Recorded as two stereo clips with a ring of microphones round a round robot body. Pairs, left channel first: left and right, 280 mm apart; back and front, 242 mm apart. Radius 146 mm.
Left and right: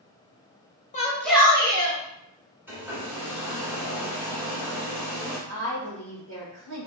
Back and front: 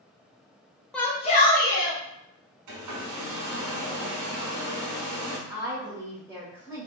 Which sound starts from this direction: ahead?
A hair dryer, at 2.7 s.